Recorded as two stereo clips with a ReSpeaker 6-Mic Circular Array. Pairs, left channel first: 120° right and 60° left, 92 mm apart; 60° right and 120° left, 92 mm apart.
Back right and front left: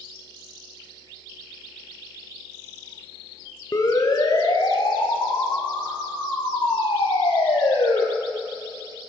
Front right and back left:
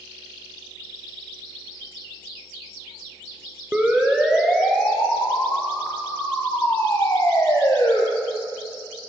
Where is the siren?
165° right, 4 m; by 8.0 s 115° right, 7 m.